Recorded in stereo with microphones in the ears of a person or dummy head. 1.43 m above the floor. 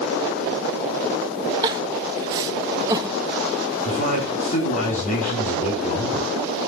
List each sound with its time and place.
1.6 s crying: 20° right (ahead or behind), 0.6 m
3.9 s a man speaking: 35° left (ahead or behind), 3 m